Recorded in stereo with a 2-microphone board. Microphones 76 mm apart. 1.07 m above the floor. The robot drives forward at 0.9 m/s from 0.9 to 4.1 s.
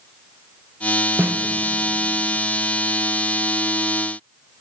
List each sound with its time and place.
1.2 s a snare drum: 30° right (ahead or behind), 0.7 m; by 1.4 s 25° right (ahead or behind), 0.8 m